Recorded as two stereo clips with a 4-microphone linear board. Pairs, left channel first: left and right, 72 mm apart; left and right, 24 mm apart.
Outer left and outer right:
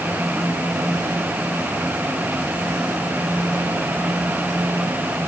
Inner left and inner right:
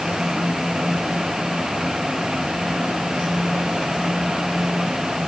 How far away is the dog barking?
No dog barking in this recording.